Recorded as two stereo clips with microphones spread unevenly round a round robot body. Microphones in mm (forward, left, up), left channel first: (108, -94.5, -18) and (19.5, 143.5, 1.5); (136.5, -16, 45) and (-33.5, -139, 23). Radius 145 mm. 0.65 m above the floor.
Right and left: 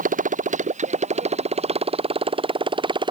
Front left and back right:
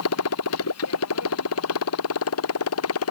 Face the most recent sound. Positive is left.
turn(degrees=40)